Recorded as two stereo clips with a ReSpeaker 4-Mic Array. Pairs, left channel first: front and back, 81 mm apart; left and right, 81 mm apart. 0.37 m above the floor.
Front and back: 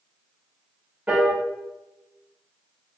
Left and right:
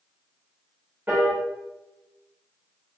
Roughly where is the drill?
No drill in this recording.